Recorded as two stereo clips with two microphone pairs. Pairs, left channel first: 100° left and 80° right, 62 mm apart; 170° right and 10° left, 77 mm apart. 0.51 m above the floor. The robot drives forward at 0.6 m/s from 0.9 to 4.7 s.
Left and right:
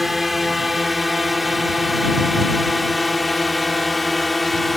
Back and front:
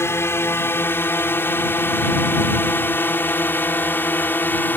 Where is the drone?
165° right; by 4.8 s 175° right.